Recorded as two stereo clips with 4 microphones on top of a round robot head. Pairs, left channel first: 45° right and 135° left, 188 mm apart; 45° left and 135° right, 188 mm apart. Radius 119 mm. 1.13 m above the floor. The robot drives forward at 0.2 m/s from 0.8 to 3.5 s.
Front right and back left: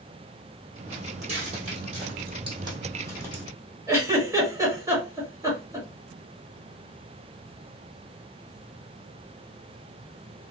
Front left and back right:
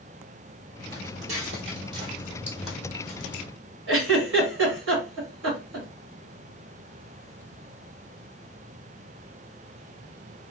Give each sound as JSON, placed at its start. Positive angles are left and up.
{"t": 0.9, "sound": "footsteps", "azimuth_deg": -175, "distance_m": 1.6}
{"t": 3.9, "sound": "a giggle", "azimuth_deg": -150, "distance_m": 1.6}